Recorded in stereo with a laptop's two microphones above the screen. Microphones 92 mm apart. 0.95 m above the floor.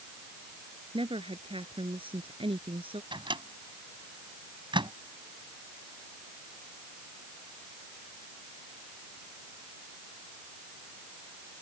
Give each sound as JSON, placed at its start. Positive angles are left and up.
{"t": 0.9, "sound": "a woman speaking", "side_deg": -75}
{"t": 3.1, "sound": "a microwave", "side_deg": -65}